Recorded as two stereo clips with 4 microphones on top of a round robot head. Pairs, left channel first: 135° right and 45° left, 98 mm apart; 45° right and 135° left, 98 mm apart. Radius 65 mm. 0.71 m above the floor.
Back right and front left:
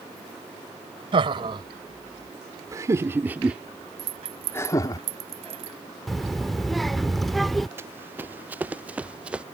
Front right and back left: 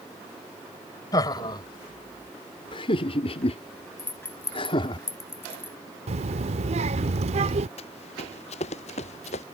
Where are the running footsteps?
20° right; by 9.4 s 35° right.